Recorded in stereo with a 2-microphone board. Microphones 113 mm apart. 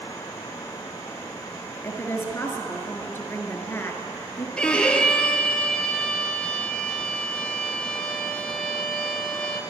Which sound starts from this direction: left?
A woman speaking, at 1.8 s.